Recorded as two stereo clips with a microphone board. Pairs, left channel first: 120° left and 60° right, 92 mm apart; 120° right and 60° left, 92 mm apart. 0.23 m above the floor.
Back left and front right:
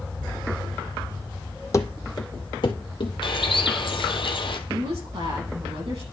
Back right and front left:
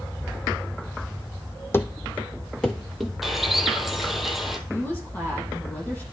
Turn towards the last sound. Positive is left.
turn(degrees=-50)